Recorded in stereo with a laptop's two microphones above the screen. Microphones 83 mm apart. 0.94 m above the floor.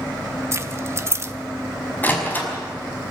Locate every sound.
0.5 s keys jangling: 35° right (ahead or behind), 0.8 m
2.0 s a door slam: 25° left (ahead or behind), 5 m